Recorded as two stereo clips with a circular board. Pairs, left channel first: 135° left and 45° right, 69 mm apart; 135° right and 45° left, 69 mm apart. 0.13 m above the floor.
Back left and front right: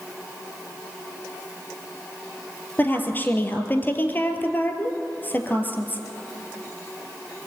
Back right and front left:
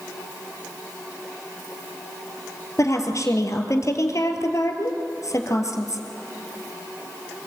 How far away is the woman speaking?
About 2.5 m.